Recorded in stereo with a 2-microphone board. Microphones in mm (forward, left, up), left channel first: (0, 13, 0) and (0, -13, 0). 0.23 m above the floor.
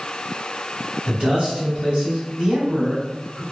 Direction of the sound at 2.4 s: 30° right (ahead or behind).